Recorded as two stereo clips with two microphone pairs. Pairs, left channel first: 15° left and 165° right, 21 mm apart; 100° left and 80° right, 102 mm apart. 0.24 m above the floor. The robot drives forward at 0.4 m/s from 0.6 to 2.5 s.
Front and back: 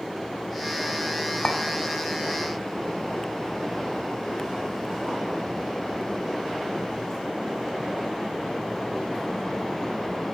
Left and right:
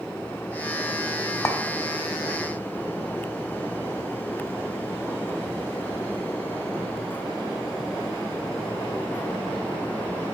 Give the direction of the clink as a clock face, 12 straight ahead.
10 o'clock.